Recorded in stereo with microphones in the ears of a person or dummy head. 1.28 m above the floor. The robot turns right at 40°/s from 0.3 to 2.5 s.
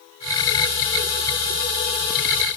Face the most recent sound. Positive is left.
No sound to turn to.